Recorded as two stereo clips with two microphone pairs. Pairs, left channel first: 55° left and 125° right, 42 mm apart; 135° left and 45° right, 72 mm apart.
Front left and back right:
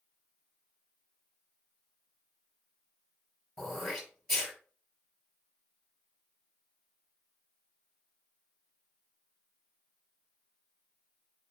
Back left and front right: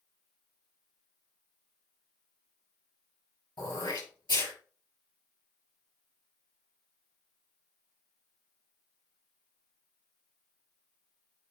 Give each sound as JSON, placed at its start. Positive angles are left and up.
{"t": 3.6, "sound": "throat clearing", "azimuth_deg": 140, "distance_m": 5.5}